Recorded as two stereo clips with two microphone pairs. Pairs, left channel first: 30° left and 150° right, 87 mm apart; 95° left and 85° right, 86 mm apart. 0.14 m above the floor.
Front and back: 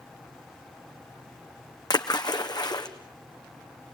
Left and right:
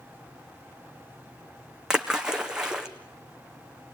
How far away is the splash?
About 1.5 m.